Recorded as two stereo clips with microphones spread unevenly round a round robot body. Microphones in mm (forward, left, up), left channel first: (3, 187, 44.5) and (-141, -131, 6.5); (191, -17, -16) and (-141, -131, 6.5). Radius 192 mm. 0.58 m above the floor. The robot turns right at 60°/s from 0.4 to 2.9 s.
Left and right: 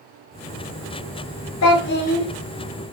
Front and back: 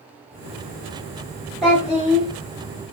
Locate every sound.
1.6 s a child speaking: 105° left, 0.8 m; by 2.3 s 145° left, 0.8 m